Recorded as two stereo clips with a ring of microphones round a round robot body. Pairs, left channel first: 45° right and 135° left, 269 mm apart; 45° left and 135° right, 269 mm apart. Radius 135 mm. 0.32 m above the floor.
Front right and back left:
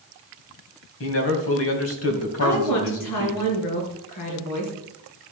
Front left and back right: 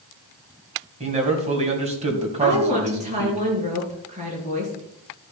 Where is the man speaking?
70° right, 2.5 m.